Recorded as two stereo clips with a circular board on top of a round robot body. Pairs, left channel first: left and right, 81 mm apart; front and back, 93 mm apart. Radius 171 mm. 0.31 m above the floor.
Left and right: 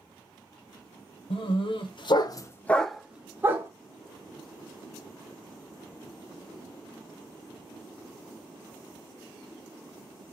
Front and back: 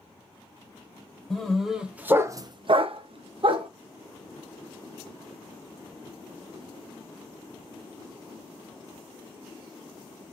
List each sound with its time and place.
1.3 s a dog barking: 85° left, 0.9 m; by 3.7 s 150° right, 0.8 m